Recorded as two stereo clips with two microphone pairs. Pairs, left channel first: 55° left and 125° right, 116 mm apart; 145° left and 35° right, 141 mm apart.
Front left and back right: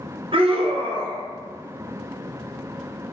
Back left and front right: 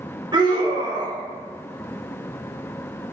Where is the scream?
95° right, 0.6 m.